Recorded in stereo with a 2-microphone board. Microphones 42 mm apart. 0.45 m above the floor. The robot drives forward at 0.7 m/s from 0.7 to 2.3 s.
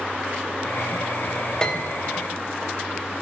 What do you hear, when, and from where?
1.6 s a piano: 20° left (ahead or behind), 1.8 m